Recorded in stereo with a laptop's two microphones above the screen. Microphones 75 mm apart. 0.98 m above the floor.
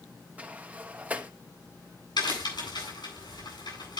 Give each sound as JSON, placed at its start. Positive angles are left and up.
{"t": 0.4, "sound": "a sliding door", "side_deg": -20, "distance_m": 0.9}
{"t": 2.2, "sound": "a crack", "side_deg": 80, "distance_m": 8.0}